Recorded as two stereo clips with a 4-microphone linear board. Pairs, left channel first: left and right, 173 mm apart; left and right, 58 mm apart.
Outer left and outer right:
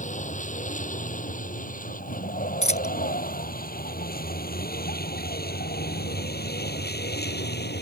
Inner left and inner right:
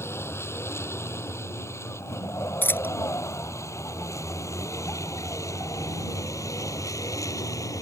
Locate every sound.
0.0 s a vehicle: 45° left (ahead or behind); by 7.8 s 75° left (ahead or behind)
2.6 s a dropped coin: 40° left (ahead or behind)